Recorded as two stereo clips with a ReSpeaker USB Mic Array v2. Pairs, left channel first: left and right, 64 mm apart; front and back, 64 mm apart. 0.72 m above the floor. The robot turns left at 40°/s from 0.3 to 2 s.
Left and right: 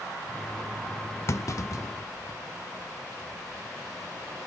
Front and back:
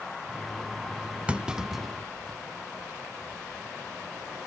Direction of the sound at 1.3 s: 115° left.